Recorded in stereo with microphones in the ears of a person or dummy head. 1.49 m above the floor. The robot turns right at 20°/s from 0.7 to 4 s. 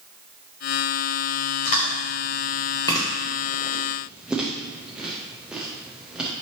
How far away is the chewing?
About 0.6 m.